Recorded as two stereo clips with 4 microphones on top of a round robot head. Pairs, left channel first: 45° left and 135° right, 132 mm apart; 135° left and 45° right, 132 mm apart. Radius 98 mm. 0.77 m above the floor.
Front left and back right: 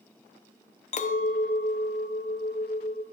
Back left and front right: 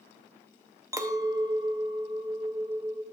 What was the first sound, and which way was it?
A clink, 20° left.